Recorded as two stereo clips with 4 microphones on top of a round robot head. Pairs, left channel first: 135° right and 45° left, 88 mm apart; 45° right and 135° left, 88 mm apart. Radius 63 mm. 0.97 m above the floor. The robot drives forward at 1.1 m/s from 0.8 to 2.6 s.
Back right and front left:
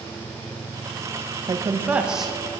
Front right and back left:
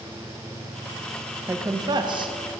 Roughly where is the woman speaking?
Left.